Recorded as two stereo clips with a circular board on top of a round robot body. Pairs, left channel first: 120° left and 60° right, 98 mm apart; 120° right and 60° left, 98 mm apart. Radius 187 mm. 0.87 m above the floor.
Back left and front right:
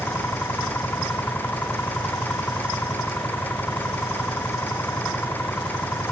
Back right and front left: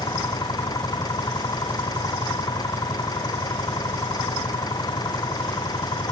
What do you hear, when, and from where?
0.0 s an engine running: 170° right